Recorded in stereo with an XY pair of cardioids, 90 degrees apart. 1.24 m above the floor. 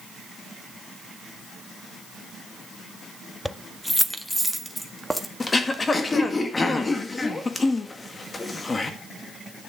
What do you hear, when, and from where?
3.5 s keys jangling: 5° left, 0.7 m; by 5.3 s 5° right, 1.8 m
5.4 s throat clearing: 30° left, 1.9 m